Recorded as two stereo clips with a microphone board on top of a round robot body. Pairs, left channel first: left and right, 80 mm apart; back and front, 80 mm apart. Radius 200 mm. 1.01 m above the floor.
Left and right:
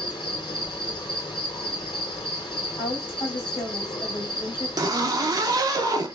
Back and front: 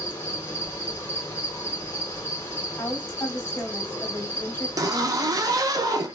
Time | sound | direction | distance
0.0 | an insect | 120° left | 2 m
2.8 | a woman speaking | 115° left | 2.5 m
4.8 | a zipper | 45° right | 0.7 m